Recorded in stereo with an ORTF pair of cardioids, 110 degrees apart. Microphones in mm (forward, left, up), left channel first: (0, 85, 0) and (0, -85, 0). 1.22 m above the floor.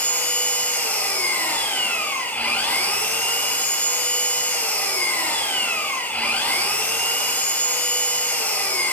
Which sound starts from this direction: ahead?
An engine running, at 0.0 s.